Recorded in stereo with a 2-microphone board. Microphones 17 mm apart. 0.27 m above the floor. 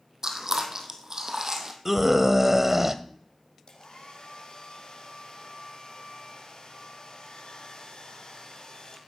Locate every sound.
0.2 s chewing: 35° right (ahead or behind), 1.9 m
1.9 s a scream: 20° right (ahead or behind), 0.9 m
3.7 s a hair dryer: 65° left (ahead or behind), 3.5 m